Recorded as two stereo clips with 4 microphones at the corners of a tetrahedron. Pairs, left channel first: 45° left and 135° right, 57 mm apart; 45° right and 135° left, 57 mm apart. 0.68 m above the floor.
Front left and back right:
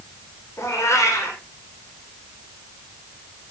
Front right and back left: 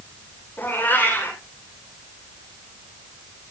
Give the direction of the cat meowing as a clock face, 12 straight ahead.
12 o'clock.